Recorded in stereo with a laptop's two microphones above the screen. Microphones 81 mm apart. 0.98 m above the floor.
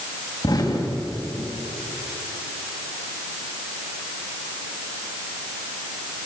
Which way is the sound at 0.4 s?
60° left (ahead or behind).